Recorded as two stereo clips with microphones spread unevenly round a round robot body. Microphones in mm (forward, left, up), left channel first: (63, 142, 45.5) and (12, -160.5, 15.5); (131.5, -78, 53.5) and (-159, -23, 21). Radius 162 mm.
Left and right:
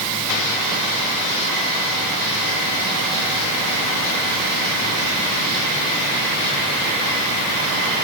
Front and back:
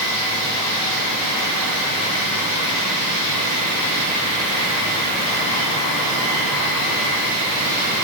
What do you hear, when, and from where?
Only background noise.